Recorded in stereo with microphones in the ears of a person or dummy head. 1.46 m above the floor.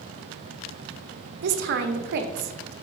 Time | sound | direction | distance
1.4 | a woman speaking | 55° right (ahead or behind) | 0.7 m